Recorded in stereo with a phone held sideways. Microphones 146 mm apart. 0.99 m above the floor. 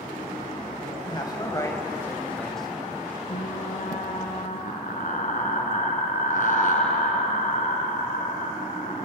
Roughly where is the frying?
Left.